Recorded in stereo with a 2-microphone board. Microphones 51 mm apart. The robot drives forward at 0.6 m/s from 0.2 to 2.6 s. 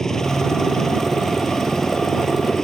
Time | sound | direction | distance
0.0 | a helicopter | 10° left (ahead or behind) | ?